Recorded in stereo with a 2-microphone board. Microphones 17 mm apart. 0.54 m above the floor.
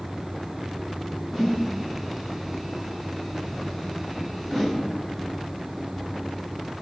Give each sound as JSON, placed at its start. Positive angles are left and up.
{"t": 1.3, "sound": "a whoosh", "side_deg": 5, "distance_m": 0.9}